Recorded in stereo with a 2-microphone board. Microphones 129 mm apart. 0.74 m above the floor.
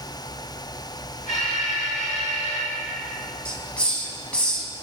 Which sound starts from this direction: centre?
A hiss, at 3.5 s.